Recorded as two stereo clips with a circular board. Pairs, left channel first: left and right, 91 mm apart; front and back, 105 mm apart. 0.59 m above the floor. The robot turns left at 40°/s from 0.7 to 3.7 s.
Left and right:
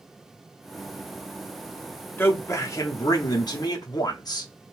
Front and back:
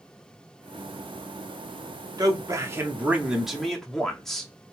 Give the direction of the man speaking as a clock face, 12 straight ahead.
7 o'clock.